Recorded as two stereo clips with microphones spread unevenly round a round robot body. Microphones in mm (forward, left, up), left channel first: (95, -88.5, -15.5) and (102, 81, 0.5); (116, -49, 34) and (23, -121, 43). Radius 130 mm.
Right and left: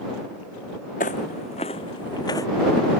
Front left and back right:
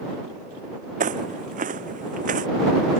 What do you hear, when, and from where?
1.0 s footsteps: 155° right; by 2.5 s 170° right